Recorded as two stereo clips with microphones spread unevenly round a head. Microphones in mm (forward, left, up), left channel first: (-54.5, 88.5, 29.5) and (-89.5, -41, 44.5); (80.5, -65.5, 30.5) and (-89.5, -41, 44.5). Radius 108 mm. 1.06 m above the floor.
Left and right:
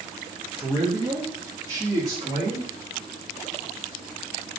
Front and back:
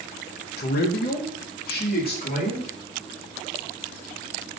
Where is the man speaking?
20° right, 0.7 m; by 2.7 s 35° right, 1.7 m.